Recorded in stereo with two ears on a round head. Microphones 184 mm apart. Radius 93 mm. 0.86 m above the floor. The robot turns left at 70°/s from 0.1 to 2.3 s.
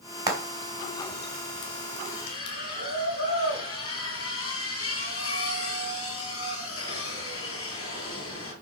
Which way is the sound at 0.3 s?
20° right (ahead or behind).